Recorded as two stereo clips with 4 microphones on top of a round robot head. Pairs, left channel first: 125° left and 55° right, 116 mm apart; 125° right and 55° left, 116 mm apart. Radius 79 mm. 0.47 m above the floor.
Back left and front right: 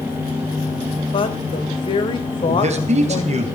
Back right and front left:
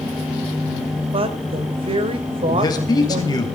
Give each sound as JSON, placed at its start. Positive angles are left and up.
{"t": 1.1, "sound": "a woman speaking", "azimuth_deg": 85, "distance_m": 2.0}
{"t": 2.5, "sound": "a man speaking", "azimuth_deg": -75, "distance_m": 2.5}